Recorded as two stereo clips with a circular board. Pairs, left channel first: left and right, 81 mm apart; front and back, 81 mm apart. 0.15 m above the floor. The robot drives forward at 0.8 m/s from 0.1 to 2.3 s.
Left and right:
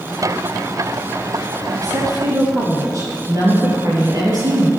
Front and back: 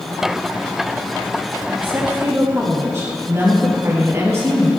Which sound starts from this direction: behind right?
A woman speaking, at 1.7 s.